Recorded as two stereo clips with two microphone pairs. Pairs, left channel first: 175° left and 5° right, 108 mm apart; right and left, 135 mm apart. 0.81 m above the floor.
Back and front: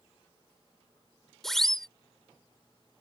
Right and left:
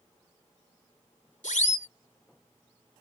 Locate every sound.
1.4 s a siren: 100° right